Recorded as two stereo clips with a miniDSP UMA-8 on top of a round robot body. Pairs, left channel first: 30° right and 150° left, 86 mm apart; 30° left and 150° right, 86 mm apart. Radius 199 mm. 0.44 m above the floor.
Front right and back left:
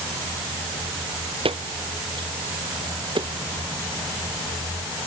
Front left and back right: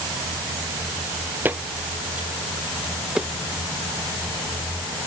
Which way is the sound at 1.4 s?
140° left.